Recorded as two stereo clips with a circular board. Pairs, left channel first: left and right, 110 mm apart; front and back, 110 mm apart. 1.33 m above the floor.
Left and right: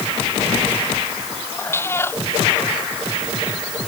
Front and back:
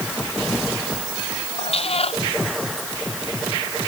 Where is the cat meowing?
25° left.